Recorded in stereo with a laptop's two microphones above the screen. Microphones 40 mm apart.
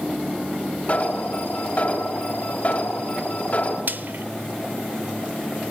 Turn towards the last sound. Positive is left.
turn(degrees=-55)  # may be behind; listen again after turning